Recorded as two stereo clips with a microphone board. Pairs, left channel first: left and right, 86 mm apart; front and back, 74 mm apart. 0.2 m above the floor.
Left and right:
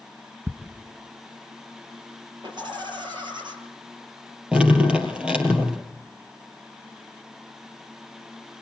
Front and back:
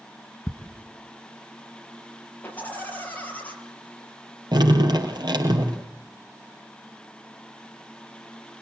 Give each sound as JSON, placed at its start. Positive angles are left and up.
{"t": 0.5, "sound": "ticking", "azimuth_deg": -30, "distance_m": 1.4}
{"t": 2.4, "sound": "laughter", "azimuth_deg": -70, "distance_m": 5.5}
{"t": 4.5, "sound": "dripping", "azimuth_deg": -170, "distance_m": 4.0}